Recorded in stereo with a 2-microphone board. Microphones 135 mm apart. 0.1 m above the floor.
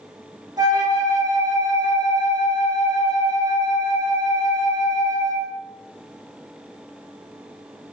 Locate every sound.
0.6 s a flute: 30° right (ahead or behind), 0.6 m